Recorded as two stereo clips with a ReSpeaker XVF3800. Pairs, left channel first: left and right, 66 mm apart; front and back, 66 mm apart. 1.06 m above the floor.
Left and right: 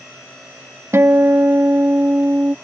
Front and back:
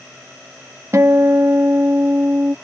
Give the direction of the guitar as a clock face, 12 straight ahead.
4 o'clock.